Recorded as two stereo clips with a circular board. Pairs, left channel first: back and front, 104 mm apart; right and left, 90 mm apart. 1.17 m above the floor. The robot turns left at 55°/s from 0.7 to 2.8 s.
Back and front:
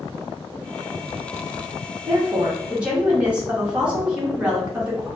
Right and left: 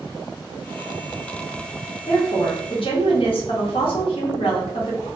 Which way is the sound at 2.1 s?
40° right.